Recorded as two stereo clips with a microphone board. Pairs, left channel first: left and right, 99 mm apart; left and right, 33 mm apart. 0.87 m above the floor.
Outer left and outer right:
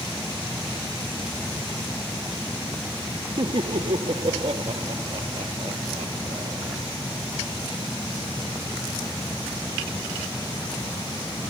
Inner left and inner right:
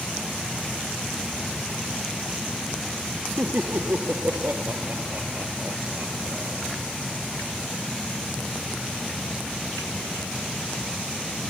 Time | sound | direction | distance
3.4 | laughter | 70° right (ahead or behind) | ?